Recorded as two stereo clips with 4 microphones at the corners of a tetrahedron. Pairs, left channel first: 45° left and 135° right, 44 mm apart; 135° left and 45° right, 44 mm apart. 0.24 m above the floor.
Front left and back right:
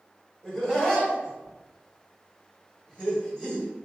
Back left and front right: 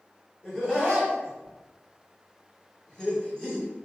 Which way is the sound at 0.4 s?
100° left.